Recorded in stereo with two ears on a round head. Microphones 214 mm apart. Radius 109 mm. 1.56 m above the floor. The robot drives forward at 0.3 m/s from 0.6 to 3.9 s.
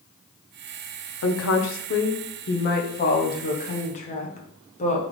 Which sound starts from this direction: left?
A woman speaking, at 1.2 s.